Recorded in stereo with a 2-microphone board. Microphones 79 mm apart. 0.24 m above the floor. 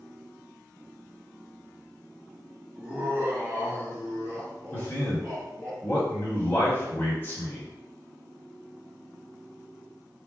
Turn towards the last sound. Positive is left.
turn(degrees=30)  # may be behind; listen again after turning